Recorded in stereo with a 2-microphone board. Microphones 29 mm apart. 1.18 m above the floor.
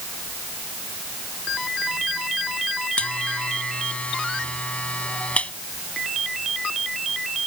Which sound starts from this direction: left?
A buzzer, at 3.0 s.